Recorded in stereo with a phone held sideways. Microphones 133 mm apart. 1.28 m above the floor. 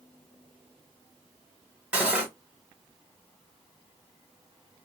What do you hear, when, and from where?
1.9 s cutlery clinking: 10° right (ahead or behind), 1.2 m